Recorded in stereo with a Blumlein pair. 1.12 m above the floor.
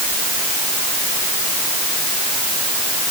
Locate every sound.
Only background noise.